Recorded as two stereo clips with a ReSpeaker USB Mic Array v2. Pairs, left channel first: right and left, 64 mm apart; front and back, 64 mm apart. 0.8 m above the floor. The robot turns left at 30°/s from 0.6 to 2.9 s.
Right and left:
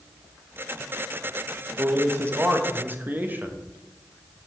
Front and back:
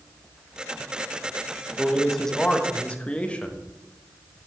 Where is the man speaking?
95° left, 0.8 m; by 3.6 s 60° left, 0.8 m.